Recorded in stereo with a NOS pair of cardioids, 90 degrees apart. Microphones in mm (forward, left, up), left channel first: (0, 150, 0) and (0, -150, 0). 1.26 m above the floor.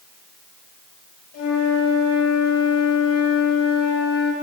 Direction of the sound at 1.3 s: 55° left.